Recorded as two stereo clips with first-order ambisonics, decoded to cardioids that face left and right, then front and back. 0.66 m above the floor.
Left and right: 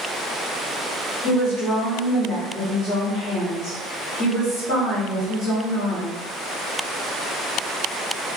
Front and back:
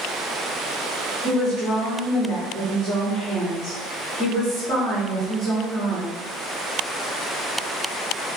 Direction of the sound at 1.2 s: 60° left.